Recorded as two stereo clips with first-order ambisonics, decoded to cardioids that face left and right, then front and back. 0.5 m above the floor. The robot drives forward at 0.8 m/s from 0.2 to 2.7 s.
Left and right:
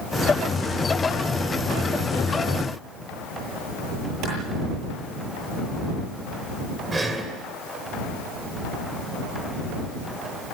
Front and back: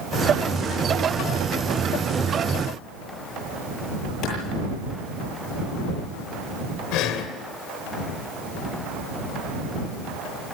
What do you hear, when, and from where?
4.2 s a clap: 45° right, 9.5 m
6.9 s breathing: 15° right, 2.5 m